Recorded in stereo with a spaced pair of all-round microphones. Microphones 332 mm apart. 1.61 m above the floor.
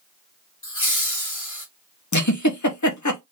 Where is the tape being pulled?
I don't hear tape being pulled.